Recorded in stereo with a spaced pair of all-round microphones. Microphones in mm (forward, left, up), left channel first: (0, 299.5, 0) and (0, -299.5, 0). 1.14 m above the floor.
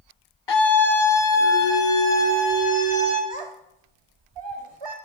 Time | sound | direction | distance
0.5 | a scream | 50° left (ahead or behind) | 0.7 m
3.3 | a child speaking | 50° right (ahead or behind) | 0.7 m